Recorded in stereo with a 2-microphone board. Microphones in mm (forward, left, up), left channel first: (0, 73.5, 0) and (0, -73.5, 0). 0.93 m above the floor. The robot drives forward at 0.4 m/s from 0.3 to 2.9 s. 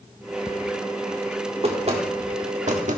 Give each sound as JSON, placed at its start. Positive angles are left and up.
{"t": 1.6, "sound": "knocking", "side_deg": -40, "distance_m": 1.8}